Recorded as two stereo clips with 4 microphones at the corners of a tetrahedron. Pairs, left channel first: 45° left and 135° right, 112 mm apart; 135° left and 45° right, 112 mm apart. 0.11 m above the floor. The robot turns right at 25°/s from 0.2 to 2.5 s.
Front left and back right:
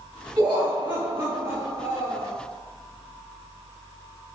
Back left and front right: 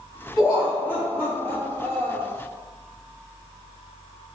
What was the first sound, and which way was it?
Laughter, 175° left.